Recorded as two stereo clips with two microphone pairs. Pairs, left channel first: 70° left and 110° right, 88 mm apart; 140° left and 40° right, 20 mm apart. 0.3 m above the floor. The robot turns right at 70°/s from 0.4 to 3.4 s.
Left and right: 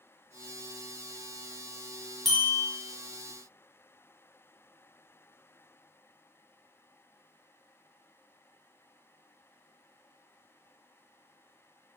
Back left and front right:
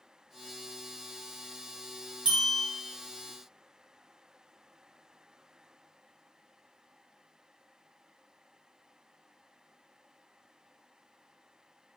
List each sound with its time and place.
2.2 s a bell: 20° right, 1.1 m; by 2.6 s 5° left, 1.1 m